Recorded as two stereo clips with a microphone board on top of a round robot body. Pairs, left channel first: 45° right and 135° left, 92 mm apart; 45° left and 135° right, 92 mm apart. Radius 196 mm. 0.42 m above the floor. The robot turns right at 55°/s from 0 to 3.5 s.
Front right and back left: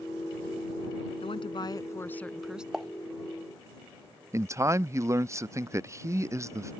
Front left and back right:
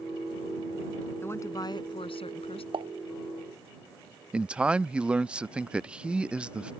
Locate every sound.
1.2 s a woman speaking: 25° right; by 2.6 s 55° left
2.7 s a pop: 140° right; by 2.9 s 130° right
4.3 s a man speaking: 155° left